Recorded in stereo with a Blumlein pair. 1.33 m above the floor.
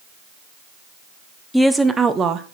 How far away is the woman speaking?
About 0.7 m.